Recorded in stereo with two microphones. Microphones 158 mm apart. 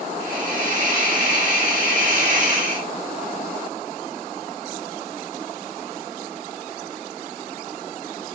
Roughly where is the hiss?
Right.